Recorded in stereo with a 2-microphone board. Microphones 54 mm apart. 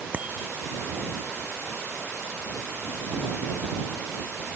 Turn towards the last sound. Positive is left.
turn(degrees=-25)  # may be behind; listen again after turning